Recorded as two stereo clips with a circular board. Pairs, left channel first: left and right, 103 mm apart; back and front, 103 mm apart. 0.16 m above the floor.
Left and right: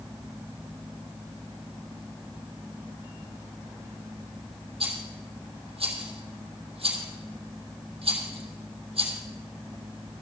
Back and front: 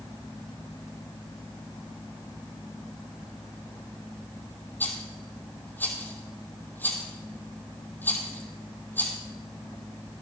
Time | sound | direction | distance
4.8 | a rattle | 110° right | 2.5 m